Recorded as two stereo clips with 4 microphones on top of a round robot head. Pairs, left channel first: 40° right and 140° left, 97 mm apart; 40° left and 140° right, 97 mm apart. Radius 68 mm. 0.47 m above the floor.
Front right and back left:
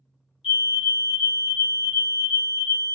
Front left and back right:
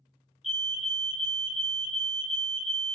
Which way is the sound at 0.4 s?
50° right.